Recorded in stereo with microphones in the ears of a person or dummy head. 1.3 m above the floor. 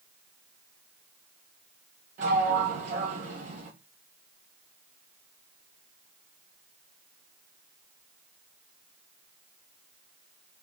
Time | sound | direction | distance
2.2 | a sliding door | 40° right (ahead or behind) | 0.8 m